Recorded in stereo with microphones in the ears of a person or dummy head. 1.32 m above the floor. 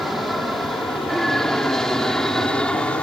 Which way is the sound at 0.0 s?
5° right (ahead or behind).